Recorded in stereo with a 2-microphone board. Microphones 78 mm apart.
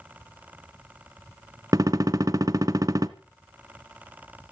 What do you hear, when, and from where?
1.7 s a gunshot: 50° right (ahead or behind), 1.1 m